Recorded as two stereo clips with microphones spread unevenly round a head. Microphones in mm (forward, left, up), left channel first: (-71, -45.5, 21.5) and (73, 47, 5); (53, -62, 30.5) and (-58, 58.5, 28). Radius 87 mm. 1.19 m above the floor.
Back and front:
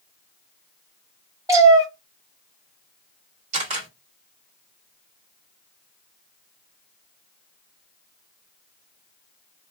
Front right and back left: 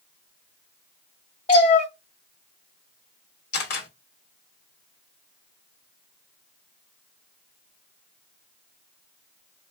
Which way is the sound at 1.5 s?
35° right.